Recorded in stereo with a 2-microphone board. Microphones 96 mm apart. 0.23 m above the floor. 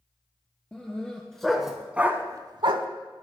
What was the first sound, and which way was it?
A dog barking, 10° left (ahead or behind).